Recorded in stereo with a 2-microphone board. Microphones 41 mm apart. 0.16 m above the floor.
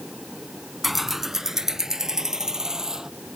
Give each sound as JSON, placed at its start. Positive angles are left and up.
{"t": 0.8, "sound": "keys jangling", "side_deg": -5}